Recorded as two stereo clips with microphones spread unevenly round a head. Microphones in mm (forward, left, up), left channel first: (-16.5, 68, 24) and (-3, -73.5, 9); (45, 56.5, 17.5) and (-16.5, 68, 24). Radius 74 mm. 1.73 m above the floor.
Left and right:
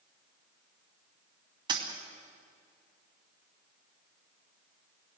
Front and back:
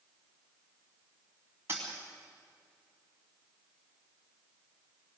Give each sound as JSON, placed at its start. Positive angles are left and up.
{"t": 1.7, "sound": "a dropped coin", "azimuth_deg": -140, "distance_m": 2.5}